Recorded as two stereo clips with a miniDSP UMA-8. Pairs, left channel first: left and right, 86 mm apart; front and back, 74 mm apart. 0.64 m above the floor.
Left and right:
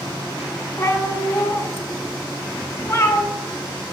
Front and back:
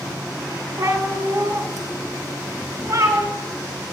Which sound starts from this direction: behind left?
A cat meowing, at 0.8 s.